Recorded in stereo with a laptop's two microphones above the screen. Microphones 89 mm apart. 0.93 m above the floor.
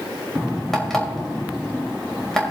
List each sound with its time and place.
0.7 s an alarm clock: 5° left (ahead or behind), 2.5 m